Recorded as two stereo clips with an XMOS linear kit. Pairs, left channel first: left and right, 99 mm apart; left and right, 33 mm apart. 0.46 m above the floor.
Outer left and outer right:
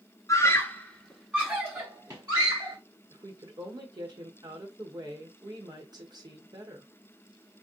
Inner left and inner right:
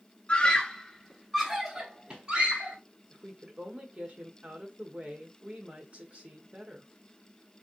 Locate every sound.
0.3 s a scream: 35° left (ahead or behind), 1.3 m; by 2.8 s 45° right (ahead or behind), 1.9 m
3.1 s a woman speaking: 40° right (ahead or behind), 1.6 m